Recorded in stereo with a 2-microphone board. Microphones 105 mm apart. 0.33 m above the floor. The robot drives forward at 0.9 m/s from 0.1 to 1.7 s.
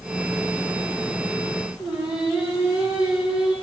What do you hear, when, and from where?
1.8 s singing: 10° right (ahead or behind), 7 m